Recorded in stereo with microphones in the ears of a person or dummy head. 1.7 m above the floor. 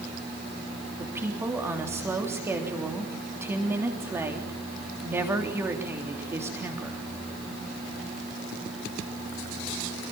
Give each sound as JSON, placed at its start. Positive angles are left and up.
{"t": 1.0, "sound": "a woman speaking", "side_deg": -10, "distance_m": 3.5}